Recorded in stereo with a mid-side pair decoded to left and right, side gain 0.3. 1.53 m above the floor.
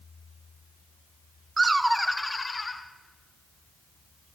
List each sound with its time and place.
1.6 s laughter: 40° right, 0.8 m; by 2.8 s 45° left, 1.8 m